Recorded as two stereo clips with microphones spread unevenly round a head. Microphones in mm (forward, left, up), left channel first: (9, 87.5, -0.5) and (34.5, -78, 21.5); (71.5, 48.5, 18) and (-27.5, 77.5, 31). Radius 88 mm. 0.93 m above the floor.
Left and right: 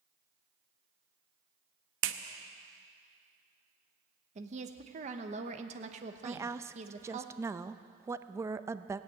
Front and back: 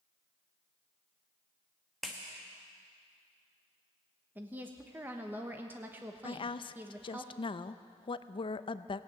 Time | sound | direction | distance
2.0 | a clap | 105° right | 0.8 m
4.3 | a woman speaking | 120° right | 1.0 m
6.2 | a woman speaking | 5° right | 0.5 m